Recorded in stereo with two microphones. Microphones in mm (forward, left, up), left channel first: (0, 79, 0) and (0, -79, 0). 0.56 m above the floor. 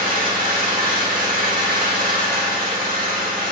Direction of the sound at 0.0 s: 65° right (ahead or behind).